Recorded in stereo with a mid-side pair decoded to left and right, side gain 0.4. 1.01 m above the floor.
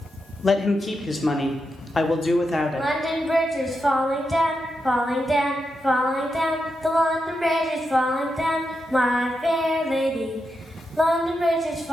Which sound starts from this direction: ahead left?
A man speaking, at 0.4 s.